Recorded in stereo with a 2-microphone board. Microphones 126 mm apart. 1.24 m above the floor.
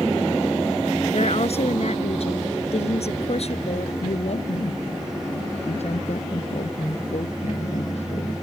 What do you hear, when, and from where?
1.1 s a woman speaking: 55° left (ahead or behind)
4.0 s a woman speaking: 60° left (ahead or behind)